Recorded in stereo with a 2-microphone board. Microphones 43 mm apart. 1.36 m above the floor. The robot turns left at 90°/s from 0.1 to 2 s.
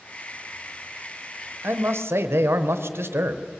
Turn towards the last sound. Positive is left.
turn(degrees=-95)